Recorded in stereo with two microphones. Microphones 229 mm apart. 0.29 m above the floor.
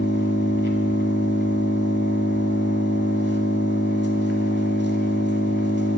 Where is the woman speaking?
I don't hear a woman speaking.